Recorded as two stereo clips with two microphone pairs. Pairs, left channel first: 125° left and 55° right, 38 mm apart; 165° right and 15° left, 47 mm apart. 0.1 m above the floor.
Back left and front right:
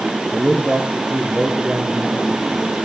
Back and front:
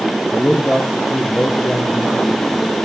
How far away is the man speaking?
About 1.4 m.